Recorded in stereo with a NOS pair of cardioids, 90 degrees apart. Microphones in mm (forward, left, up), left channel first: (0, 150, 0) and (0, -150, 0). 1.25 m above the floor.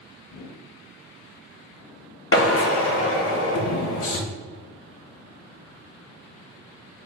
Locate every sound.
0.3 s a whoosh: 60° left, 1.2 m
2.3 s a drill: 45° left, 1.1 m